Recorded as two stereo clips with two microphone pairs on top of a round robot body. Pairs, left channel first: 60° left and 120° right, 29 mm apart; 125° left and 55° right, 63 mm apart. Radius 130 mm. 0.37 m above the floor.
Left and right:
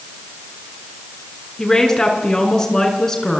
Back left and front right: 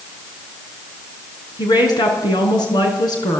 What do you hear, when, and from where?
1.6 s a woman speaking: 130° left, 5 m